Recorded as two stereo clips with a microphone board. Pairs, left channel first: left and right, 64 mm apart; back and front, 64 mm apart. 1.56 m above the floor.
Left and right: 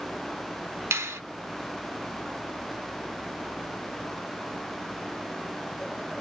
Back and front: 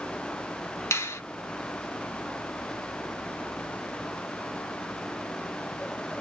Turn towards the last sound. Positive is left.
turn(degrees=-135)